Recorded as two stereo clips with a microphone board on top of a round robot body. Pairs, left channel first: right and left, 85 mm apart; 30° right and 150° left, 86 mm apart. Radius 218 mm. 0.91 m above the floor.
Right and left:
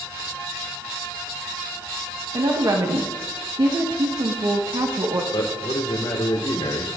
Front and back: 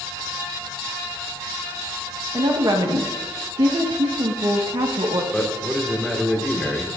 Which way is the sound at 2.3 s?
125° left.